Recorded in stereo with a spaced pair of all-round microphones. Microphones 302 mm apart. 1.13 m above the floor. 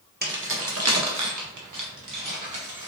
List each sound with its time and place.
0.2 s keys jangling: 30° right (ahead or behind), 0.9 m; by 2.9 s 85° right, 1.8 m